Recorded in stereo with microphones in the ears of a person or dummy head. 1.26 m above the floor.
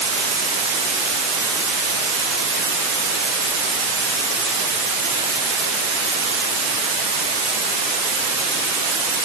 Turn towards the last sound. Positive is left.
No sound to turn to.